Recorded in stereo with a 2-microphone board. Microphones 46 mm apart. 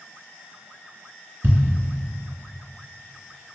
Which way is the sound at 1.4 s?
55° right (ahead or behind).